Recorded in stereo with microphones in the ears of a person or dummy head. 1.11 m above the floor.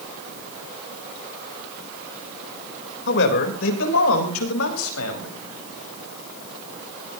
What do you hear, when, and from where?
3.1 s a man speaking: 60° left (ahead or behind), 4 m; by 5.3 s 85° left, 6 m